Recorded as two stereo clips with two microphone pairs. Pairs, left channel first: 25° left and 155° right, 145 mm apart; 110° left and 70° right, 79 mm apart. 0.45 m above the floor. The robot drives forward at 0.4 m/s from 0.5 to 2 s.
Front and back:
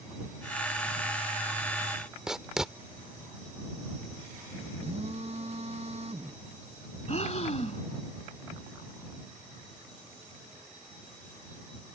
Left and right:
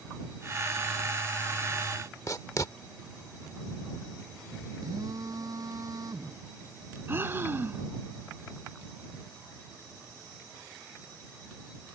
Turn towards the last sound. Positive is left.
turn(degrees=-10)